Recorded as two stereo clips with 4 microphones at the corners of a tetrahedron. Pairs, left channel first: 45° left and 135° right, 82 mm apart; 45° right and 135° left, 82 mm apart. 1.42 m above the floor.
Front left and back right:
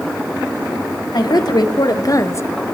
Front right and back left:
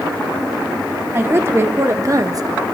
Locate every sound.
1.1 s a woman speaking: 75° left, 1.5 m; by 2.5 s 105° left, 0.5 m